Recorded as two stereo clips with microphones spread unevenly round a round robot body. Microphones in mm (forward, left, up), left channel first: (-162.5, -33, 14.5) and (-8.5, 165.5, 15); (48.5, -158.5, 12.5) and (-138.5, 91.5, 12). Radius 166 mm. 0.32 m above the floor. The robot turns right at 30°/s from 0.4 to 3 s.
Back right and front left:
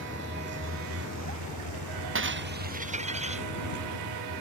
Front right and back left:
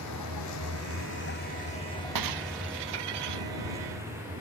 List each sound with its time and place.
0.0 s a vehicle: 5° right; by 4.4 s 45° left
2.1 s breaking glass: 90° left; by 3.5 s 115° left